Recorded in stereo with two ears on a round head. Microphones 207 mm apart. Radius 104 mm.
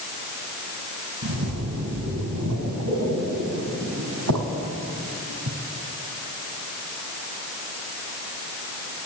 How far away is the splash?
About 4 m.